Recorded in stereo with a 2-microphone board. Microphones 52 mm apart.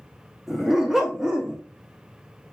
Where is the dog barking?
5° right (ahead or behind), 1.2 m; by 1.6 s 20° right (ahead or behind), 0.7 m.